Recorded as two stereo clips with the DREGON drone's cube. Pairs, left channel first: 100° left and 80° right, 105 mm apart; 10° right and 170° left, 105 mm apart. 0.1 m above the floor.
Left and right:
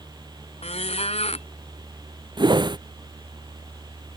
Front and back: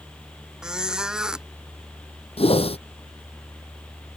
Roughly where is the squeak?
Left.